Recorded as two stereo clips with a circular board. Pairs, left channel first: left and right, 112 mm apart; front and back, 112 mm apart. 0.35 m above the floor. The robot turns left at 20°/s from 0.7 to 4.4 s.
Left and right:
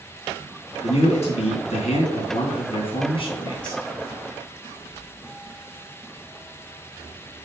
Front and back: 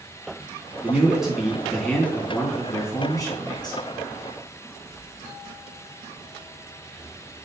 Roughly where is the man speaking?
Left.